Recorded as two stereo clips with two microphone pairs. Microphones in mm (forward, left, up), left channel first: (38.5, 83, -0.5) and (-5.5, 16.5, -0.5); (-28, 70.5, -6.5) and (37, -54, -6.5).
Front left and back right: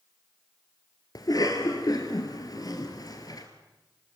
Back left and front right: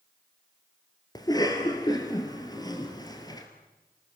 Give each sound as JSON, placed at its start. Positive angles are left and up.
{"t": 1.1, "sound": "a cough", "azimuth_deg": 60, "distance_m": 1.8}